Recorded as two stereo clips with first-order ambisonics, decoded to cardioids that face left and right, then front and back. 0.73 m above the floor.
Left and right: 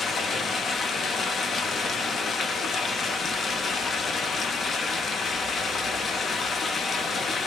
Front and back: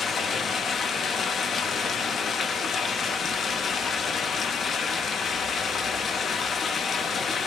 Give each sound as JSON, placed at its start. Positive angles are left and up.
{"t": 0.0, "sound": "running water", "azimuth_deg": 40, "distance_m": 0.8}